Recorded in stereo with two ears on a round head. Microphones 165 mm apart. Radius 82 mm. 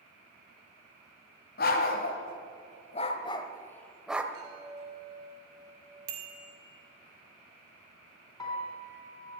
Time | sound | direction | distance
1.6 | a dog barking | 55° left (ahead or behind) | 1.7 m
4.3 | a chime | 20° right (ahead or behind) | 7.5 m
6.1 | a bicycle bell | 60° right (ahead or behind) | 2.5 m
8.4 | a piano | 20° left (ahead or behind) | 4 m